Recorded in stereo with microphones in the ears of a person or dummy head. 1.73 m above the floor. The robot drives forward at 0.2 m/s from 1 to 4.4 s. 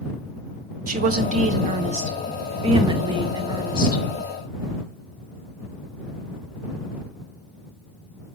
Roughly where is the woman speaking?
Right.